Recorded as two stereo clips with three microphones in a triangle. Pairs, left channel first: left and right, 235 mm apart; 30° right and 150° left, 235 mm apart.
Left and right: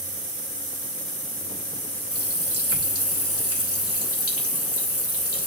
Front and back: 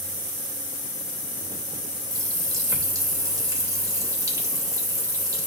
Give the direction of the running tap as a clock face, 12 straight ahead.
10 o'clock.